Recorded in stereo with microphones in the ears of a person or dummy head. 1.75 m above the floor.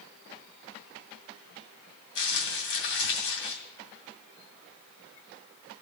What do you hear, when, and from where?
2.1 s crumpling: 75° left (ahead or behind), 2.5 m